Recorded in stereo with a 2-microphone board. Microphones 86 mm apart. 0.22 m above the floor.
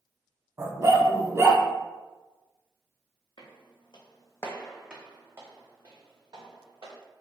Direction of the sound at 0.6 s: 35° right (ahead or behind).